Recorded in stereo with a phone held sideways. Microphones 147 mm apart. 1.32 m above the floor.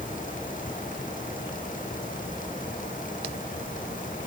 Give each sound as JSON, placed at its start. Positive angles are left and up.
{"t": 0.0, "sound": "a fan", "side_deg": 65}